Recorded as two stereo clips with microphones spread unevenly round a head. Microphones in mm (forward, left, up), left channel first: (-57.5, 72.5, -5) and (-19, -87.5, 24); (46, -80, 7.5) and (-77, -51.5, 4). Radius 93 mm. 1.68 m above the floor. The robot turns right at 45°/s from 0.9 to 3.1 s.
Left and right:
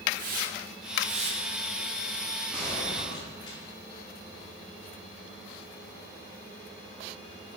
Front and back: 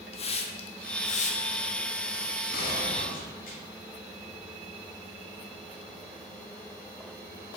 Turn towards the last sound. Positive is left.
turn(degrees=35)